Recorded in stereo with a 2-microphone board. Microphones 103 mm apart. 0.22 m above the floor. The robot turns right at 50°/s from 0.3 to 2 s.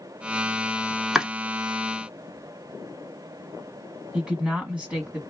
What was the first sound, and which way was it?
Chopping, 5° right (ahead or behind).